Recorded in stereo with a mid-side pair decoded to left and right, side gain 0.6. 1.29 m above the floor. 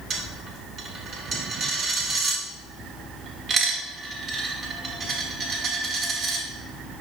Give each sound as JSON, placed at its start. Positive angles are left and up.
{"t": 0.1, "sound": "a dropped coin", "azimuth_deg": -45, "distance_m": 2.0}